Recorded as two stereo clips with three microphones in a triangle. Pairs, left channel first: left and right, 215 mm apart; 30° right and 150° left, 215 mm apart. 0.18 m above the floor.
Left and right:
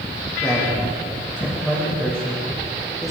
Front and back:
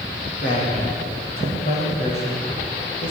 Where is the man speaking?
20° left, 9.5 m; by 3.1 s straight ahead, 7.5 m.